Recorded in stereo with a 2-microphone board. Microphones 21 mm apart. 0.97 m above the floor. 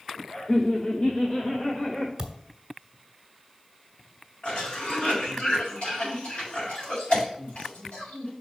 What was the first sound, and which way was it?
Laughter, 40° left (ahead or behind).